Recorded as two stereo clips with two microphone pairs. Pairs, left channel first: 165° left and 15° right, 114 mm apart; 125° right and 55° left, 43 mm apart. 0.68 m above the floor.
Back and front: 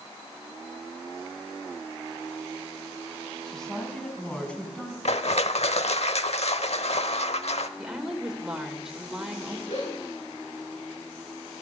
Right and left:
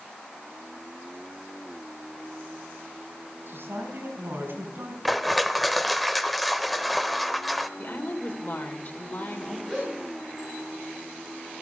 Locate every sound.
3.5 s a woman speaking: 80° left, 4 m; by 5.0 s 90° left, 5 m
5.0 s crushing: 150° left, 0.8 m
7.8 s a woman speaking: 95° right, 2.5 m
9.7 s a gasp: 155° left, 9.5 m